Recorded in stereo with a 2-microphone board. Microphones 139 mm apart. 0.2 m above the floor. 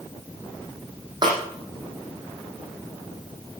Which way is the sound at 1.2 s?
30° right (ahead or behind).